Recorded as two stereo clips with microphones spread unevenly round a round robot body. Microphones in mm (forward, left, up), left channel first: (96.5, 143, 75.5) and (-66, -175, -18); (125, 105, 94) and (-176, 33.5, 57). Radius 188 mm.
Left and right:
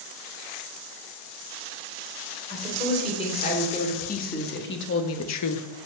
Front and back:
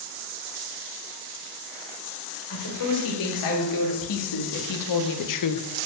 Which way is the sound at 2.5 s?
15° right.